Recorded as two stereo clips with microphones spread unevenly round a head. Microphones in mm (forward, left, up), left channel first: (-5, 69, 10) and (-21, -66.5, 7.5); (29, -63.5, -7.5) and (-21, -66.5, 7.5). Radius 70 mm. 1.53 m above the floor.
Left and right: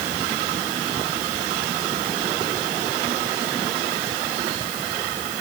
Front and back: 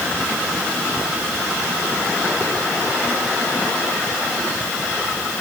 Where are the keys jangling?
I don't hear keys jangling.